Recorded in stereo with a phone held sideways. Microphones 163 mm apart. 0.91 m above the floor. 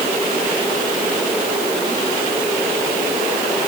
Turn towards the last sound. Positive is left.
No sound to turn to.